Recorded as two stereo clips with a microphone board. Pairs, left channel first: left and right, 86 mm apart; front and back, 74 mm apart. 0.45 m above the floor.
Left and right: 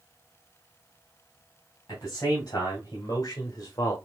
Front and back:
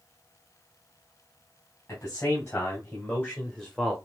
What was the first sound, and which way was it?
A man speaking, 45° left.